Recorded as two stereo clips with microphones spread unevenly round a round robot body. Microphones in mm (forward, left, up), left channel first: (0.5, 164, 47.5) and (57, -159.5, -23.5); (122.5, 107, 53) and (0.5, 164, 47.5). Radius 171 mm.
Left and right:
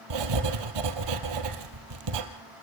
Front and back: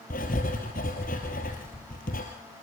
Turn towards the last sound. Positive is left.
turn(degrees=-80)